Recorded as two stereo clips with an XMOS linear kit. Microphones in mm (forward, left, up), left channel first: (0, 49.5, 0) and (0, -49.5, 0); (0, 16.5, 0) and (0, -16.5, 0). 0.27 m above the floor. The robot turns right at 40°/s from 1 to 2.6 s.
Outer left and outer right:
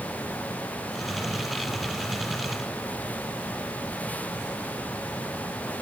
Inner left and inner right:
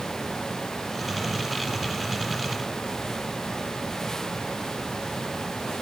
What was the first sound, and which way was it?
Only background noise.